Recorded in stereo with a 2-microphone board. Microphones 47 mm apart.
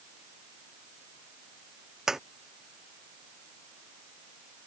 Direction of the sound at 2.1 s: 5° right (ahead or behind).